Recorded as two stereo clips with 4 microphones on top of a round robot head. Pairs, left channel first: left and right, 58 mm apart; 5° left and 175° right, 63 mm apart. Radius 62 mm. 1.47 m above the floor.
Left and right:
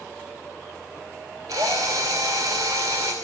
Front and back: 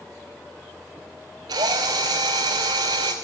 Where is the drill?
135° right, 2.5 m.